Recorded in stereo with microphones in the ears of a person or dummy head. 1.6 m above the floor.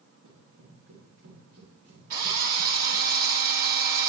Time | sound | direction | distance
0.2 | running footsteps | 80° right | 8 m
2.1 | a drill | 55° right (ahead or behind) | 2 m